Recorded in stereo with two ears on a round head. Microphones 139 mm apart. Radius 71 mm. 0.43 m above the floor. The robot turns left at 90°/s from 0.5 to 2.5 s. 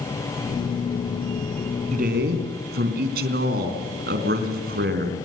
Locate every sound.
1.9 s a man speaking: 45° right, 4 m; by 5.2 s 100° right, 4 m